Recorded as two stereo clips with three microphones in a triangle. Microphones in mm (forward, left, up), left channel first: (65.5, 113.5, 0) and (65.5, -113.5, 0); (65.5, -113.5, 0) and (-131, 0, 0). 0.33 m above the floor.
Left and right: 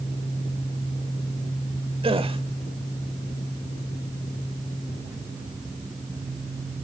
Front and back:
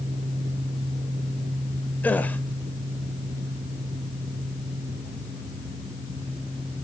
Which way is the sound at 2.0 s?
105° right.